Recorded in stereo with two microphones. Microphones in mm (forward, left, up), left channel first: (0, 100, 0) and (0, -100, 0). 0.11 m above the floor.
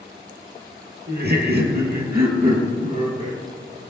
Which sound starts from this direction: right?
Laughter, at 1.1 s.